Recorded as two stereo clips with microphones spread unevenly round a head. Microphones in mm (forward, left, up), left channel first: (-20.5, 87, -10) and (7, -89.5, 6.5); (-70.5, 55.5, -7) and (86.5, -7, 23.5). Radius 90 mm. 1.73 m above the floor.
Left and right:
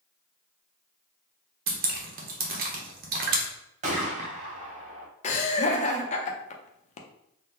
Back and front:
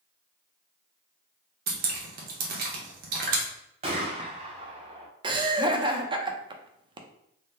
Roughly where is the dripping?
Ahead right.